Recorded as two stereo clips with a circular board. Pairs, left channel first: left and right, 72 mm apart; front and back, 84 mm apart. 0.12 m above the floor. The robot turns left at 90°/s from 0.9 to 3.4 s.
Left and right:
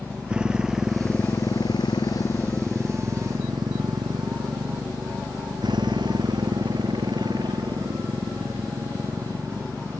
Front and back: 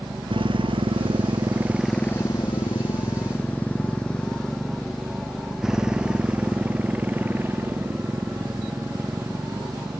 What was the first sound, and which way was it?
A motorcycle, 165° right.